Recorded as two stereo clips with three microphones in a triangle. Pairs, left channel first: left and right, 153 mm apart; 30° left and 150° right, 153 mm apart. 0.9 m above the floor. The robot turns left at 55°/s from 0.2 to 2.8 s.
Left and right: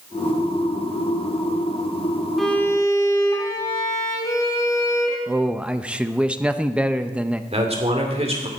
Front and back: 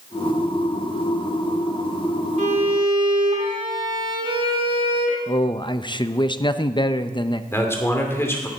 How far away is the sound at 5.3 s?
About 0.6 m.